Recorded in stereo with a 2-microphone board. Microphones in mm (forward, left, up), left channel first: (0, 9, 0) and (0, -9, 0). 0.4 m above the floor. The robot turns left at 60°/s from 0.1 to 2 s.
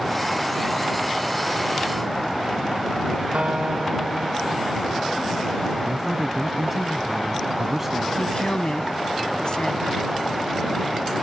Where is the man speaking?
10° right (ahead or behind).